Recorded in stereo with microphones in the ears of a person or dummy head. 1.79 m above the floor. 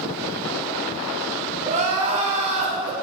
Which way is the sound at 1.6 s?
30° right (ahead or behind).